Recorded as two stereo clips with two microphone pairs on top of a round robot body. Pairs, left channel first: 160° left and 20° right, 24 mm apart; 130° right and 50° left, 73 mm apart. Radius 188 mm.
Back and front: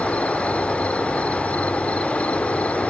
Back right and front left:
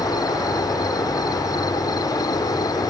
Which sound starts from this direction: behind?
An insect, at 0.0 s.